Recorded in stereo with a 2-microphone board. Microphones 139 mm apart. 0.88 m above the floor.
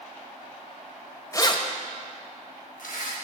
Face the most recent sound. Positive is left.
turn(degrees=75)  # may be behind; listen again after turning